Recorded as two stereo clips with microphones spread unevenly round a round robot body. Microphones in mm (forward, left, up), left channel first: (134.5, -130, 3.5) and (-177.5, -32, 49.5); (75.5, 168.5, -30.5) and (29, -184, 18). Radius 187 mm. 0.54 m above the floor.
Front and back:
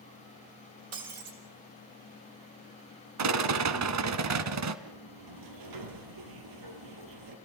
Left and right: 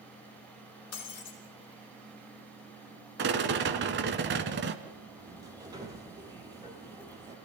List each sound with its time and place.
0.9 s breaking glass: 135° left, 5.5 m
3.2 s a rattle: 160° right, 1.6 m
4.8 s a sliding door: straight behind, 3.5 m